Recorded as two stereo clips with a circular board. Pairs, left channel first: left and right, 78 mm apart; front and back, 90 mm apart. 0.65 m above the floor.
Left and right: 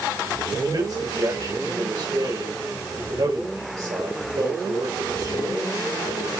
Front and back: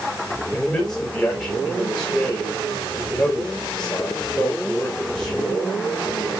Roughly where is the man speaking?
Right.